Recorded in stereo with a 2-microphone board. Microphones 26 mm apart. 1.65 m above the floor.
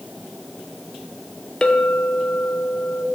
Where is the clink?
25° left (ahead or behind), 0.6 m.